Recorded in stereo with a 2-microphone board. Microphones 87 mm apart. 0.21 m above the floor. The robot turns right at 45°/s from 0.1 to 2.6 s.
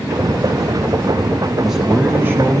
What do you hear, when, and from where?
1.6 s a man speaking: 175° right, 1.3 m; by 2.6 s 130° right, 1.3 m